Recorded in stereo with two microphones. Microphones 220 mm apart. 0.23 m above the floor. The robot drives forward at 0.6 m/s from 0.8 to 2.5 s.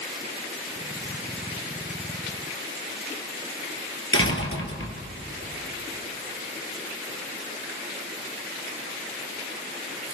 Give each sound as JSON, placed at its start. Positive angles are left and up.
{"t": 4.1, "sound": "a door slam", "side_deg": 65, "distance_m": 3.0}